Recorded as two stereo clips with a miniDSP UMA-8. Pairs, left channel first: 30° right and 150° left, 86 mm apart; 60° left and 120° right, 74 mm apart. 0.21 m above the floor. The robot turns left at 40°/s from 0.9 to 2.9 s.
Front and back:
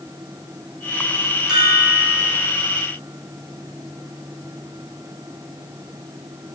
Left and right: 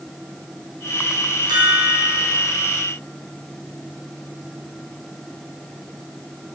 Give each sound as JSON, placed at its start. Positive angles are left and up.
{"t": 1.5, "sound": "a chime", "azimuth_deg": -130, "distance_m": 3.0}